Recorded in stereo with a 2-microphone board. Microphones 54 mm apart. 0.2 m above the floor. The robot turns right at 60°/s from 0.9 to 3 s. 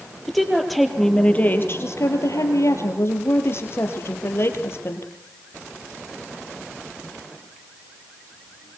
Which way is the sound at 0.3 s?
Straight ahead.